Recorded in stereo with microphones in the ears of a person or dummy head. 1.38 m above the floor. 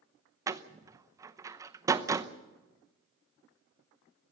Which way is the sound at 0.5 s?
25° right (ahead or behind).